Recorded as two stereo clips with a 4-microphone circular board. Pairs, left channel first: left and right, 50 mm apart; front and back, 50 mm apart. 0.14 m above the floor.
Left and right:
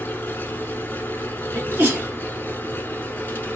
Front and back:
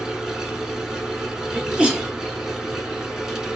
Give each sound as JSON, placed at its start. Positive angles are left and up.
{"t": 0.0, "sound": "an engine running", "azimuth_deg": 105, "distance_m": 0.8}
{"t": 1.5, "sound": "a sneeze", "azimuth_deg": -115, "distance_m": 2.0}